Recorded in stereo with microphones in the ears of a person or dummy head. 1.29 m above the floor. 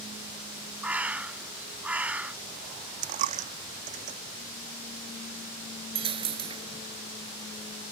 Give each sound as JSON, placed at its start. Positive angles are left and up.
{"t": 0.8, "sound": "a bird", "side_deg": -10}
{"t": 3.0, "sound": "a dropped coin", "side_deg": -45}
{"t": 6.0, "sound": "a dropped coin", "side_deg": -30}